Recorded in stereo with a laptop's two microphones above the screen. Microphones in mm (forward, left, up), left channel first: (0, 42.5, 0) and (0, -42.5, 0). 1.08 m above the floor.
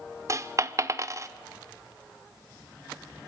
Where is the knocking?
I don't hear knocking.